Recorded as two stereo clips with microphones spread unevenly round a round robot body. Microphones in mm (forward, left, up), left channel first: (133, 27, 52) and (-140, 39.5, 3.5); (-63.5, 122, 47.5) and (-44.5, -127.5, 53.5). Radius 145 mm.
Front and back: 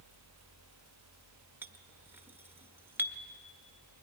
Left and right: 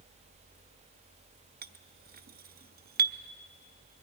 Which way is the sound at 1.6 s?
115° right.